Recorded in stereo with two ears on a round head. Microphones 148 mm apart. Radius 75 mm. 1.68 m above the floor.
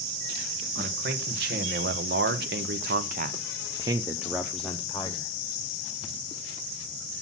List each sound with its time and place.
0.8 s a man speaking: 60° right (ahead or behind), 1.6 m; by 5.3 s 20° left (ahead or behind), 1.0 m